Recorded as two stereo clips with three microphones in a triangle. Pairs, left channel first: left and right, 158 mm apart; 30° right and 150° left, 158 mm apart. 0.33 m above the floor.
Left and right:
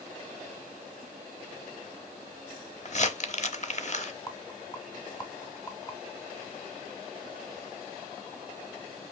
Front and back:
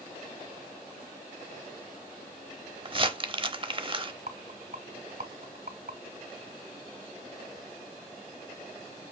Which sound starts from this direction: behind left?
A rattle, at 4.3 s.